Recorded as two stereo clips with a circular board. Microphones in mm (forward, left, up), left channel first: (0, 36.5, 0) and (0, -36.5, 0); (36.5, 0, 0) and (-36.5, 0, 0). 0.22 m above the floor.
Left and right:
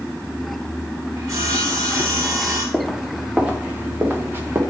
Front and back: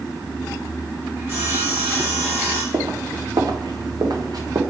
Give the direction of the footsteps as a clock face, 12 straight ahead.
6 o'clock.